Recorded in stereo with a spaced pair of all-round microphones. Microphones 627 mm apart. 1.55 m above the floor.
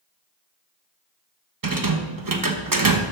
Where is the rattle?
35° right (ahead or behind), 0.9 m.